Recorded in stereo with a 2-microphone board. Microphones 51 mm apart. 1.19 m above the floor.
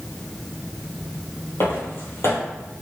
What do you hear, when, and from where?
1.6 s footsteps: 55° left (ahead or behind), 2.0 m